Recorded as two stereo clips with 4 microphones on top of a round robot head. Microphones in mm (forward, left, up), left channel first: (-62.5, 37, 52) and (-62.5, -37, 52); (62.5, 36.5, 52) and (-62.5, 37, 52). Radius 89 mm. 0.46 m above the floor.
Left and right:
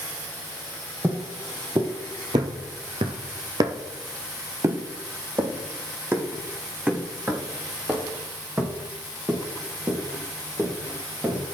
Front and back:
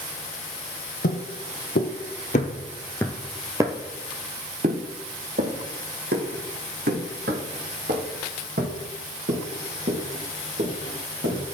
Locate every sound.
1.0 s footsteps: 20° right, 1.3 m; by 11.4 s 165° right, 4.5 m